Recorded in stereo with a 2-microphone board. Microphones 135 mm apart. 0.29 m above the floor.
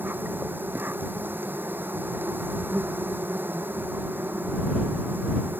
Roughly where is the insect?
Centre.